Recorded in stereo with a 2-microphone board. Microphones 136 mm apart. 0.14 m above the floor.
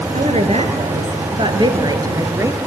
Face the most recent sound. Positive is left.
turn(degrees=-20)  # may be behind; listen again after turning